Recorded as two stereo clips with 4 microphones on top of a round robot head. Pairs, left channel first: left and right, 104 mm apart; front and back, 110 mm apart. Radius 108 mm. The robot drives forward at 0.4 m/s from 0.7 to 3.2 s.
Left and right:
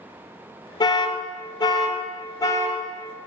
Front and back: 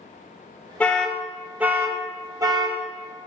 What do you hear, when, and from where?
0.8 s an alarm: 75° left, 0.8 m; by 2.8 s 145° left, 1.0 m